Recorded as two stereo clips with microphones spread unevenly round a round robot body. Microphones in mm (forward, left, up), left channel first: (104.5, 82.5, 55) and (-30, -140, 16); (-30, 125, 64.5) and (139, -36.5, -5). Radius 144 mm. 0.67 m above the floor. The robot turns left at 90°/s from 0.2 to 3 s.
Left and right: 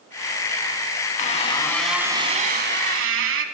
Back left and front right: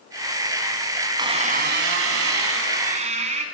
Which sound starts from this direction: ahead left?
A squeak, at 1.2 s.